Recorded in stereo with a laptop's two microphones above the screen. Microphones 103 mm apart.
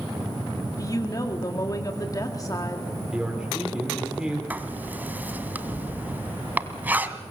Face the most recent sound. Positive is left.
turn(degrees=-15)  # may be behind; listen again after turning